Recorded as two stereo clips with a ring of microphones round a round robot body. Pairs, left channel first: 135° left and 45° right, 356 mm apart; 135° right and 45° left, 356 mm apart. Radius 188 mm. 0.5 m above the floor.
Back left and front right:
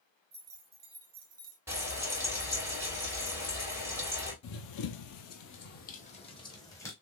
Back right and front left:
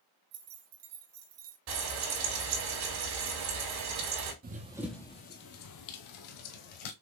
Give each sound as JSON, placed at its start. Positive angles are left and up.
{"t": 0.3, "sound": "keys jangling", "azimuth_deg": 20, "distance_m": 2.0}
{"t": 1.7, "sound": "frying", "azimuth_deg": 40, "distance_m": 3.0}
{"t": 4.4, "sound": "running footsteps", "azimuth_deg": 105, "distance_m": 0.7}